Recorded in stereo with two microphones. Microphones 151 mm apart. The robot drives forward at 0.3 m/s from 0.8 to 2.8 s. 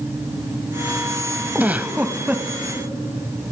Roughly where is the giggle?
Centre.